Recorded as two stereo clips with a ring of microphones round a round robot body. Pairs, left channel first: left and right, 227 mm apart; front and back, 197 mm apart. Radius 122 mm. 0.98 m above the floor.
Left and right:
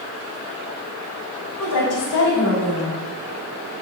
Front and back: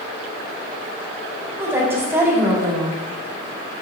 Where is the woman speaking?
100° left, 2.5 m.